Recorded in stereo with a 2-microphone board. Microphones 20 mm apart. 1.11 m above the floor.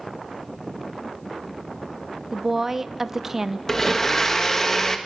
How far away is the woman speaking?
About 0.7 m.